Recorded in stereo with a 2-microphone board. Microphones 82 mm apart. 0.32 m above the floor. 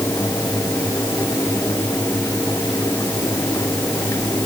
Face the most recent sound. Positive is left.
No sound to turn to.